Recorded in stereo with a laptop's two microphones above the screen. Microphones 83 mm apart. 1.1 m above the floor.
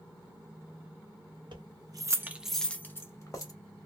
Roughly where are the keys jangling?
Right.